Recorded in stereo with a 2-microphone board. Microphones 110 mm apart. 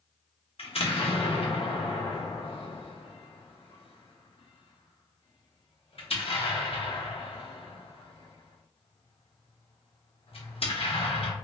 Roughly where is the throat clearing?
I don't hear throat clearing.